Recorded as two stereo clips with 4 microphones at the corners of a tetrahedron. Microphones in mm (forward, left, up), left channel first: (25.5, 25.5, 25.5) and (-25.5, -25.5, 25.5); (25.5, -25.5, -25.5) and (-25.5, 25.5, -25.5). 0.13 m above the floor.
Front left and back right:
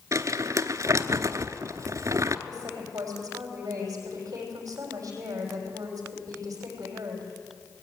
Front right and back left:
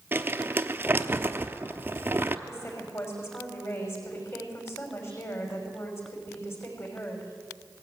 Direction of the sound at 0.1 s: 170° right.